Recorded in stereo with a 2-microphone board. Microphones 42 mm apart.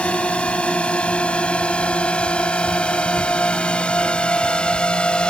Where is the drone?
30° left (ahead or behind); by 5.3 s 25° left (ahead or behind).